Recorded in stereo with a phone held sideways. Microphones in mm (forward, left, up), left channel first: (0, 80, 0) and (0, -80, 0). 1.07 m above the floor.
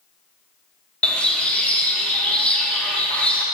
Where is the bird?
10° left (ahead or behind), 0.7 m.